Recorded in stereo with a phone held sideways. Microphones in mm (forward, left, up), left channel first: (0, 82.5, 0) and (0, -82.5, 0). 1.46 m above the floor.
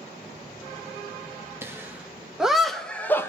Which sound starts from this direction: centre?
Laughter, at 1.6 s.